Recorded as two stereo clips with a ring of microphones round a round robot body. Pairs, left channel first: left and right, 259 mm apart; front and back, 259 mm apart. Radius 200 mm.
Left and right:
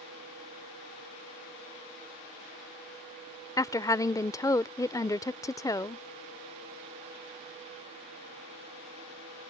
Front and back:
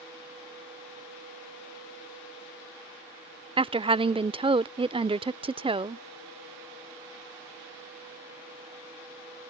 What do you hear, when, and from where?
3.6 s a woman speaking: 145° left